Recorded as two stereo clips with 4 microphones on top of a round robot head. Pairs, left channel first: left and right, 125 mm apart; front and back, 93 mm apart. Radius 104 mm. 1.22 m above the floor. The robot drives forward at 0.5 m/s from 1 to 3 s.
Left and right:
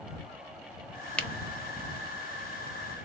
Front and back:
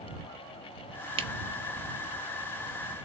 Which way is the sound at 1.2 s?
170° left.